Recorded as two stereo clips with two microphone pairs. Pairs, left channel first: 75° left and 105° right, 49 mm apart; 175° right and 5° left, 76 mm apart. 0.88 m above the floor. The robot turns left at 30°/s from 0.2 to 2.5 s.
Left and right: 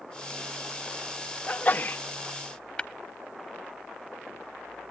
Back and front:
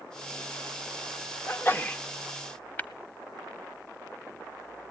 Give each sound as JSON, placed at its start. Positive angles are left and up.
{"t": 1.5, "sound": "a sneeze", "azimuth_deg": 130, "distance_m": 1.0}
{"t": 2.8, "sound": "tapping", "azimuth_deg": 135, "distance_m": 0.8}